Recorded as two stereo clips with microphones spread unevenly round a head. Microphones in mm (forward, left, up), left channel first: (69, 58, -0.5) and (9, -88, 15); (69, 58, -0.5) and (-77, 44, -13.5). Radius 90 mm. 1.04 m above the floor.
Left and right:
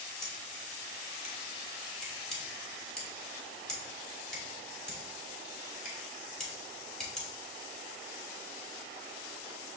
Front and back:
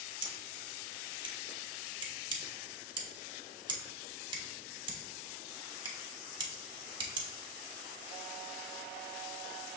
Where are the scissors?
160° left, 0.8 m.